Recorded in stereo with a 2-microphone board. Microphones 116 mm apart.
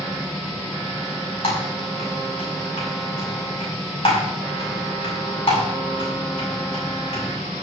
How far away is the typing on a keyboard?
About 6.5 m.